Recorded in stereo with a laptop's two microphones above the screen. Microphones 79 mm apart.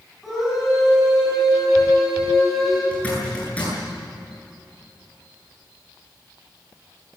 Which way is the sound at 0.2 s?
Centre (ahead or behind).